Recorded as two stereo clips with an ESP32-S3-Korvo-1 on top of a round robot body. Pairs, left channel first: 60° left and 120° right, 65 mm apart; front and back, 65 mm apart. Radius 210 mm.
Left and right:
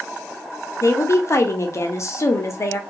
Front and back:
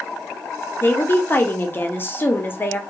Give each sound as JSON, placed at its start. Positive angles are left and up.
{"t": 0.8, "sound": "a woman speaking", "azimuth_deg": 45, "distance_m": 0.9}